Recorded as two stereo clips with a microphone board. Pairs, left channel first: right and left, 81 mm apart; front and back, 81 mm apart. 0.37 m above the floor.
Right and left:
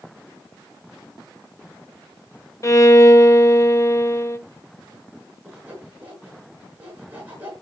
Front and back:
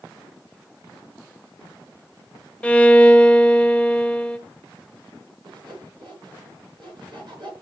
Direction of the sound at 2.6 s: 65° right.